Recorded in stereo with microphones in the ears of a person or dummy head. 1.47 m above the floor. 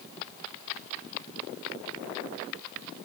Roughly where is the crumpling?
No crumpling in this recording.